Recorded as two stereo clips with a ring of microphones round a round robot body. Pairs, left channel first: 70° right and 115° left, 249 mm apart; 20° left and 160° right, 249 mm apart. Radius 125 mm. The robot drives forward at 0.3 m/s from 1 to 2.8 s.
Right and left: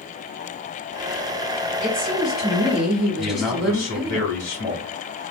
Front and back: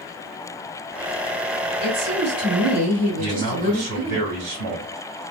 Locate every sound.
1.8 s a woman speaking: 155° right, 2 m; by 4.2 s 160° right, 2.5 m
3.2 s a man speaking: 150° right, 2.5 m